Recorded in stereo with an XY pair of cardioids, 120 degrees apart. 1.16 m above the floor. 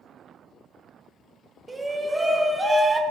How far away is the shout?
About 0.9 m.